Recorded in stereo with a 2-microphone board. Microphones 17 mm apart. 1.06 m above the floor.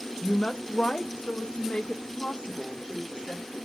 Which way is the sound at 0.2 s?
45° left (ahead or behind).